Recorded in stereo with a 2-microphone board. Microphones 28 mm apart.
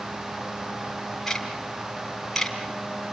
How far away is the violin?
I don't hear a violin.